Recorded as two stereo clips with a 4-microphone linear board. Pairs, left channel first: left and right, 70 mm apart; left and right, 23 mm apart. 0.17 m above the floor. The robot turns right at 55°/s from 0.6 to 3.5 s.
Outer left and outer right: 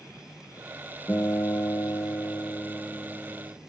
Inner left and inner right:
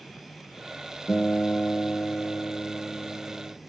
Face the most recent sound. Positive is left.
turn(degrees=170)